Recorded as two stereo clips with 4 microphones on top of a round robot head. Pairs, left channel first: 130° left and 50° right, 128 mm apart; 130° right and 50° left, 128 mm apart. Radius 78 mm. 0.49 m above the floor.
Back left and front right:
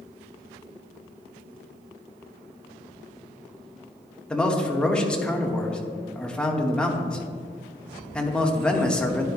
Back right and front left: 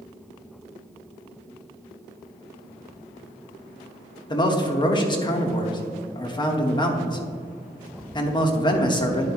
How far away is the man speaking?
About 1.2 m.